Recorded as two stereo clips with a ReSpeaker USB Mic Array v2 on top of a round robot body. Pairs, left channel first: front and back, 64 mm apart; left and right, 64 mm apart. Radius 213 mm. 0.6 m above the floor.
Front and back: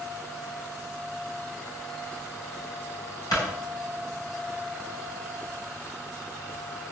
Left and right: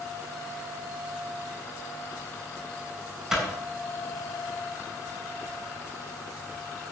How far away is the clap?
About 7 m.